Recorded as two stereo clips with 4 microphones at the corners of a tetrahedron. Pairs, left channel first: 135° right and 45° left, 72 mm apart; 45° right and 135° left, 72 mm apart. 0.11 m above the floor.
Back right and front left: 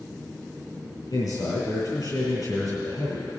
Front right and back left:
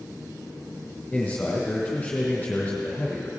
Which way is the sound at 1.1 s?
125° right.